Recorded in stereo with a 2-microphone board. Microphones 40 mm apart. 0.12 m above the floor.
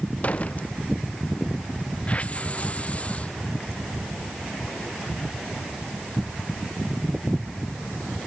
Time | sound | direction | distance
0.2 | a door slam | 40° left (ahead or behind) | ?
2.1 | a hiss | 35° left (ahead or behind) | ?